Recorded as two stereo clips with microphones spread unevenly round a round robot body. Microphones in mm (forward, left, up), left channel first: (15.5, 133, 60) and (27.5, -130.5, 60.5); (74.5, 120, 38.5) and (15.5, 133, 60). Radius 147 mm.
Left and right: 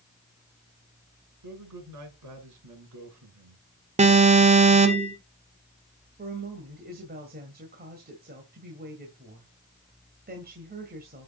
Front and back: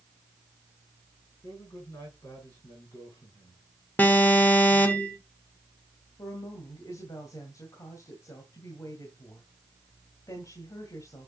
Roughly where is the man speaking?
Right.